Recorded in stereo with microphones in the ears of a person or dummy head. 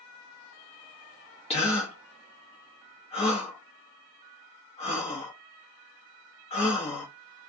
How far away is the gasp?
About 1.0 m.